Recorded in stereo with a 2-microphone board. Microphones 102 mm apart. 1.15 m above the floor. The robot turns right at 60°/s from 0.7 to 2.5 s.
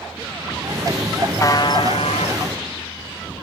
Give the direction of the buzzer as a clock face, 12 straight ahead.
11 o'clock.